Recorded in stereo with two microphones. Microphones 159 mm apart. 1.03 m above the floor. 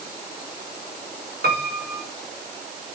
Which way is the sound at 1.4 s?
85° right.